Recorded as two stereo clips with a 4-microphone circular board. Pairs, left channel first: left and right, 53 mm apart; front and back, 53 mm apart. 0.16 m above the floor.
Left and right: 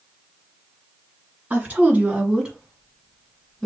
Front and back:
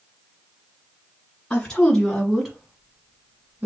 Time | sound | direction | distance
1.5 | a woman speaking | 65° right | 1.4 m